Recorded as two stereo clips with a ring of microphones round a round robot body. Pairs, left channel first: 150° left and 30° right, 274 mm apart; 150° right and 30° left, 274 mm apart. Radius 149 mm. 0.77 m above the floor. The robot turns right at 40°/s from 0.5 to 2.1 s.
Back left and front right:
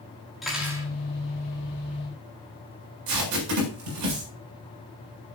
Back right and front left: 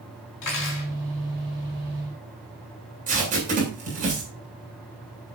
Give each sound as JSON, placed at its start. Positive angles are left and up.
{"t": 0.4, "sound": "cutlery clinking", "azimuth_deg": -120, "distance_m": 5.0}
{"t": 3.1, "sound": "tape being pulled", "azimuth_deg": -35, "distance_m": 7.5}